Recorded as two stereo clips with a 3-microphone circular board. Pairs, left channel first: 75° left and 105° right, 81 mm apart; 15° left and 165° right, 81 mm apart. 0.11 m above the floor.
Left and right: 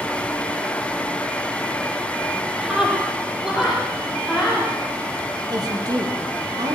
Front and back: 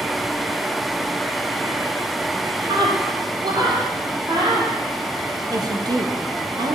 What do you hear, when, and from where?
2.6 s a scream: 170° left, 3.5 m
5.5 s a woman speaking: 135° right, 4 m